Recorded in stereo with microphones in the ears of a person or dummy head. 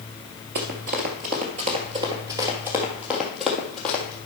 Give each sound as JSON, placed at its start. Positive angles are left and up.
{"t": 0.6, "sound": "running footsteps", "side_deg": -40, "distance_m": 1.4}